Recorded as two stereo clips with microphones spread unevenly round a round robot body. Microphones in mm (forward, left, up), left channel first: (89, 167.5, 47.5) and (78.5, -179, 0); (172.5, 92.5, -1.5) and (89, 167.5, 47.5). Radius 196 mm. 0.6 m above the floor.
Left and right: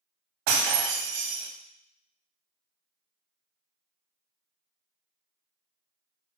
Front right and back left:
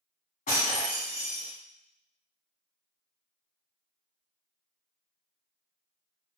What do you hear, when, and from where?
0.5 s breaking glass: 90° right, 0.9 m